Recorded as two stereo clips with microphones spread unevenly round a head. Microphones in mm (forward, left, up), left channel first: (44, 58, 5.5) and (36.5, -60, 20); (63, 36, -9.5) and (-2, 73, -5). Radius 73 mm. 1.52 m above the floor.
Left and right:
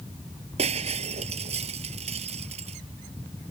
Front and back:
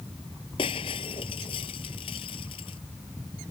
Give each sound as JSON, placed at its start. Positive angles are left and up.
{"t": 0.6, "sound": "breaking glass", "azimuth_deg": -60}